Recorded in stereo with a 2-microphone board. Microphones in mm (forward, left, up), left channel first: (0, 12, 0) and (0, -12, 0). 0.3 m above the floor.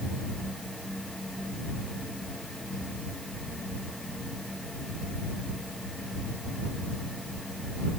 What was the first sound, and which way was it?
Only background noise.